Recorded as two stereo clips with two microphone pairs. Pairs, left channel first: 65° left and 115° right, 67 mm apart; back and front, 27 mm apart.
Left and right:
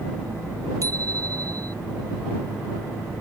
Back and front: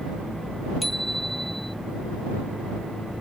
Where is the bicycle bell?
90° right.